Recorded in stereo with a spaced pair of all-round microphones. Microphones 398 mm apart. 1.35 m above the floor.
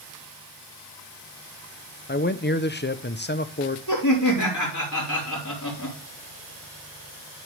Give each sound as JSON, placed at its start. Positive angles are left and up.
{"t": 2.1, "sound": "a man speaking", "side_deg": 25, "distance_m": 0.7}
{"t": 3.9, "sound": "laughter", "side_deg": 45, "distance_m": 4.0}